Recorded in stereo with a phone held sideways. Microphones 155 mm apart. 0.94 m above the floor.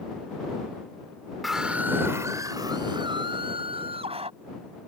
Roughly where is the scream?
Centre.